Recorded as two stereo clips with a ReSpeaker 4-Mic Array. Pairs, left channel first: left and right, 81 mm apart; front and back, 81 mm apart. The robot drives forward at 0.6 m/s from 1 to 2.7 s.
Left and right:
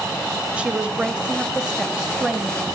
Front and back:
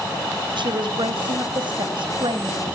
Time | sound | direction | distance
0.6 | a woman speaking | 165° right | 1.2 m